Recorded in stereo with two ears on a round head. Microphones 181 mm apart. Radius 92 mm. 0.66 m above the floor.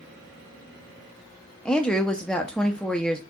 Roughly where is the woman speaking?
Centre.